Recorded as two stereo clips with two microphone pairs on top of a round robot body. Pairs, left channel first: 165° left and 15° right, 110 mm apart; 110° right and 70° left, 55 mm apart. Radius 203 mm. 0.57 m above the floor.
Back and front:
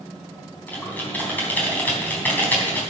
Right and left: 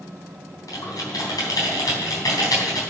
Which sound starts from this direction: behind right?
Typing on a keyboard, at 0.7 s.